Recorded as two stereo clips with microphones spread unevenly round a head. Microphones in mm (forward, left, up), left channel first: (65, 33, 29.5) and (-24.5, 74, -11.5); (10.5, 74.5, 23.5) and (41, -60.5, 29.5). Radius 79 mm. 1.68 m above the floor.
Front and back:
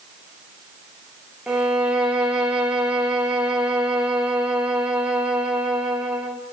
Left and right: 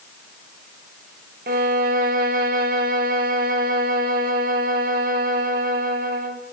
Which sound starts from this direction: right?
A violin, at 1.5 s.